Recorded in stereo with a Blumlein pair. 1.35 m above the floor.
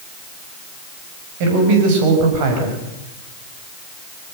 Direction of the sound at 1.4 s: 45° right.